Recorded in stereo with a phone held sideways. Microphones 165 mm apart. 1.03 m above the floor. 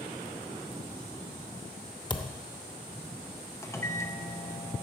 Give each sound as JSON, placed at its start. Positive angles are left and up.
{"t": 2.1, "sound": "a thud", "side_deg": 25, "distance_m": 0.7}
{"t": 3.6, "sound": "a microwave", "side_deg": 15, "distance_m": 0.7}